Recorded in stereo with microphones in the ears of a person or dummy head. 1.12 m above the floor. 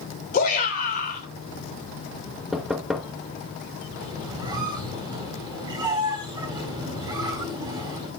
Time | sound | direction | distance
0.3 | a shout | 50° left (ahead or behind) | 4 m
2.5 | knocking | centre (ahead or behind) | 1.0 m
4.0 | a squeak | 20° right (ahead or behind) | 4.5 m